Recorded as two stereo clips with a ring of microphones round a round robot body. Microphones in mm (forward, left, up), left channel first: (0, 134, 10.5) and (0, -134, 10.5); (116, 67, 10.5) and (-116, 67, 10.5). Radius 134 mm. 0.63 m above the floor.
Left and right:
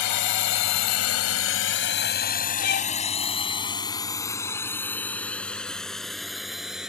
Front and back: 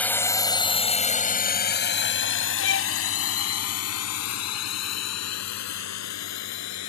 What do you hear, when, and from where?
0.0 s a drone: 85° left; by 6.9 s straight ahead
2.6 s a violin: 35° left